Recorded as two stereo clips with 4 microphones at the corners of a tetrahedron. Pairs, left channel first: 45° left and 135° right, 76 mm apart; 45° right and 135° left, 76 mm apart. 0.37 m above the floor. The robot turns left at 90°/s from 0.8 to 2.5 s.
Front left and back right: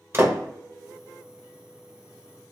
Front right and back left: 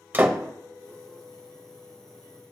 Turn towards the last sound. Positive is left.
turn(degrees=35)